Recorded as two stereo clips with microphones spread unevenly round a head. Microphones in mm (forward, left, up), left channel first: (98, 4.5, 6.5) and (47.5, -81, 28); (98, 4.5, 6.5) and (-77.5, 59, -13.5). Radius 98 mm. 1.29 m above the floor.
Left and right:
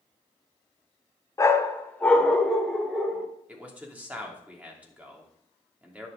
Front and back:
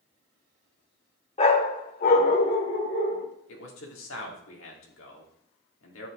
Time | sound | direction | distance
1.4 | a dog barking | straight ahead | 1.1 m
3.5 | a man speaking | 45° right | 3 m